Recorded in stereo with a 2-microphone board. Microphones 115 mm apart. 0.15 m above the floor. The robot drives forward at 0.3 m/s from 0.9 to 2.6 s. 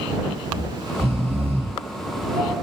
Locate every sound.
0.5 s snoring: 55° right (ahead or behind), 4.5 m